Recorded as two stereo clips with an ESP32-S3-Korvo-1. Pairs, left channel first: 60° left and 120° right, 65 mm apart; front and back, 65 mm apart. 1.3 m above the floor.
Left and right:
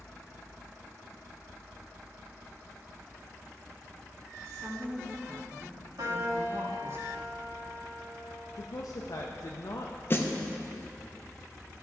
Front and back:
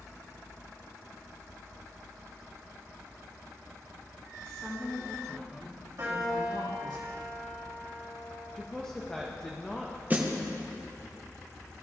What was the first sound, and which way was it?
A woman speaking, 75° right.